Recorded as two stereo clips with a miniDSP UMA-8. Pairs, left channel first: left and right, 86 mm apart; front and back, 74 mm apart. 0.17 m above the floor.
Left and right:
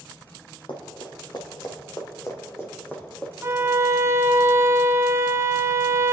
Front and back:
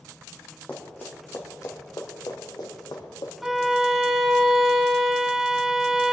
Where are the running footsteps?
70° left, 3 m; by 3.3 s 15° left, 3.5 m.